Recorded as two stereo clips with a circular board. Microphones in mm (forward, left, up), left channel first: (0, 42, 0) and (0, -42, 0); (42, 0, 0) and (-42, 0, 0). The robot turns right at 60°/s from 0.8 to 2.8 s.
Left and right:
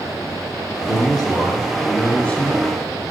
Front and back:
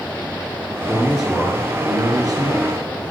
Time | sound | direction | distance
0.9 | a man speaking | 80° left | 2.5 m